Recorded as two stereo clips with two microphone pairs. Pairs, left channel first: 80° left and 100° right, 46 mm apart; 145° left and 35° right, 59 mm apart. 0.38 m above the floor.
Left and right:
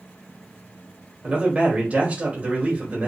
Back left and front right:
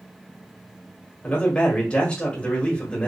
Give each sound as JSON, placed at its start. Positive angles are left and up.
{"t": 1.2, "sound": "a man speaking", "azimuth_deg": -150, "distance_m": 1.5}